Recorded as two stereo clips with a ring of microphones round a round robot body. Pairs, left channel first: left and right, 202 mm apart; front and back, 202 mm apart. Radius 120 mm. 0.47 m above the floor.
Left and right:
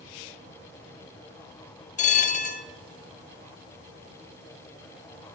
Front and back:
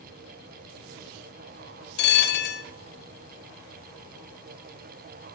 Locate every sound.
2.0 s a bell: 35° left, 0.6 m